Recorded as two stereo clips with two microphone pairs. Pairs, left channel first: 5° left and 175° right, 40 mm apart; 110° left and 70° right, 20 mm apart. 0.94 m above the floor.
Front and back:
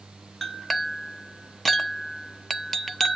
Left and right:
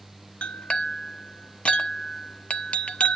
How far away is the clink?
About 0.7 m.